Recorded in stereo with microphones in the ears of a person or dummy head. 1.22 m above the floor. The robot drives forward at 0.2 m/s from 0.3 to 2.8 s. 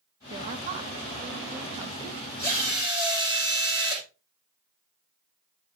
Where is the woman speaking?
35° right (ahead or behind), 1.3 m; by 2.3 s 25° right (ahead or behind), 1.7 m.